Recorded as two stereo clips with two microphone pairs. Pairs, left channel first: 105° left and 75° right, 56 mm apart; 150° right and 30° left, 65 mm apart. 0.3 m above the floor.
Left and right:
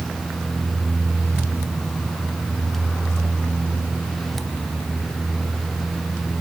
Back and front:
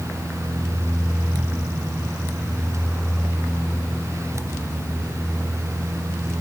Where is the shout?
I don't hear a shout.